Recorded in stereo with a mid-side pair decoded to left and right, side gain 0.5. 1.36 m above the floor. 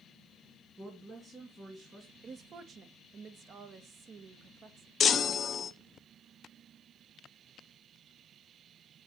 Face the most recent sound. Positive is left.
turn(degrees=45)